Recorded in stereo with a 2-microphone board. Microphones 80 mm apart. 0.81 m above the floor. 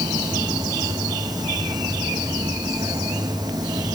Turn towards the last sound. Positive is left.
turn(degrees=-60)  # may be behind; listen again after turning